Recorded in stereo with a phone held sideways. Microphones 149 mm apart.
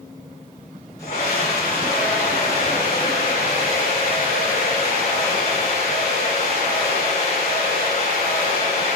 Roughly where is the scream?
Left.